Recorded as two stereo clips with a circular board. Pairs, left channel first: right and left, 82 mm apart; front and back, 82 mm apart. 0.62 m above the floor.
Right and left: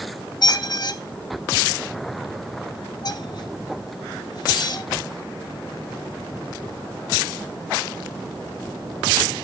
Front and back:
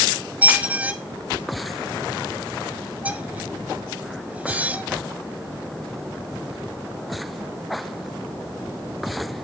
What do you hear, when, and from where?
0.4 s a squeak: 110° right, 0.7 m